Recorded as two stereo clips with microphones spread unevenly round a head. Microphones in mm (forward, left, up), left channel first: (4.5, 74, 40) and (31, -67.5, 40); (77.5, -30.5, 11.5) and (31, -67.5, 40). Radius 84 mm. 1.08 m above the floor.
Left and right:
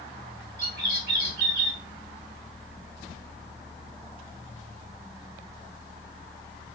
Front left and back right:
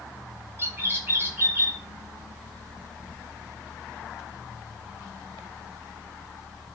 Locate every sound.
0.6 s a bird: 85° right, 1.2 m